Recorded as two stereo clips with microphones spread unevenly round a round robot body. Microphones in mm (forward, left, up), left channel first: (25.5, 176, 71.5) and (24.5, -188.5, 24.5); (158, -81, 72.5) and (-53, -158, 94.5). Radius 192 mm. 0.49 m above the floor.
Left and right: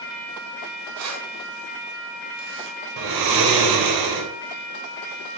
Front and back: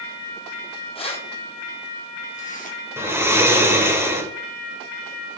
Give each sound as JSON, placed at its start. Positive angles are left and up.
{"t": 0.9, "sound": "keys jangling", "azimuth_deg": -45, "distance_m": 3.5}
{"t": 3.0, "sound": "snoring", "azimuth_deg": -80, "distance_m": 2.5}